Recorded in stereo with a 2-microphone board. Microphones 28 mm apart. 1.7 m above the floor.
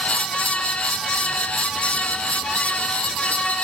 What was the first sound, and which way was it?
Only background noise.